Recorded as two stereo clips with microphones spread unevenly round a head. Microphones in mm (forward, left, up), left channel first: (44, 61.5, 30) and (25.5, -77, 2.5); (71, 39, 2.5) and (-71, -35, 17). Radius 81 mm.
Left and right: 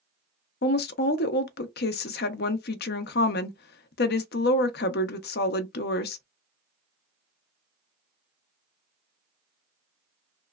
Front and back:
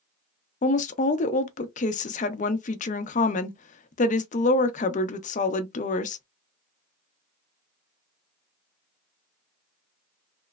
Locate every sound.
0.6 s a woman speaking: 75° left, 0.6 m